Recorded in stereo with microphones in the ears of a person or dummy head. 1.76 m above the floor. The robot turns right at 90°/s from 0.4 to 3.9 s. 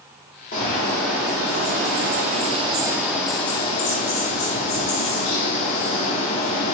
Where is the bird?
135° left, 0.6 m; by 6.8 s 80° left, 0.6 m.